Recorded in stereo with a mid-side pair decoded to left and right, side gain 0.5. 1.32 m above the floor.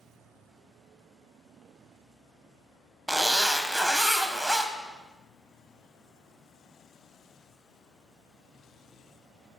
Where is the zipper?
5° right, 0.6 m.